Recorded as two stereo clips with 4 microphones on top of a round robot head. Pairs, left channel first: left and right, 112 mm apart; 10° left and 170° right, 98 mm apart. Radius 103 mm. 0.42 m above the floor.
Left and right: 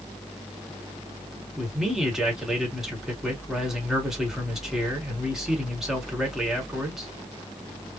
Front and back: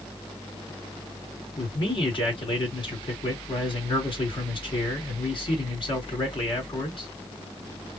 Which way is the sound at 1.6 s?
5° right.